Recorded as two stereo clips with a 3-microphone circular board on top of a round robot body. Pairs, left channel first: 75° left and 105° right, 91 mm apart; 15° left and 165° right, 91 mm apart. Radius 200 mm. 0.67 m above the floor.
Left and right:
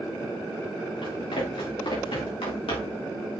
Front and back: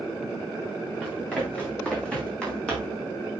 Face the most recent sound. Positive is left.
turn(degrees=95)